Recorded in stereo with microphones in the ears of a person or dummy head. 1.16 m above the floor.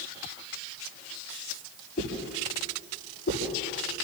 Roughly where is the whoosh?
Left.